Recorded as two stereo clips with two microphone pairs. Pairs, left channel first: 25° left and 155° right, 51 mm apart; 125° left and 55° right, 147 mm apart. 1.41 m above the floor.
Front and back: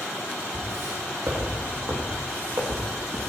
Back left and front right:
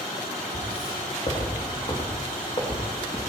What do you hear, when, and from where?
0.5 s footsteps: 170° left, 5 m; by 3.3 s straight behind, 4 m